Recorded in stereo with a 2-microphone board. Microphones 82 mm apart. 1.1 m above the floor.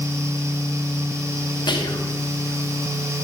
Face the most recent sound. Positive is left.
turn(degrees=70)  # may be behind; listen again after turning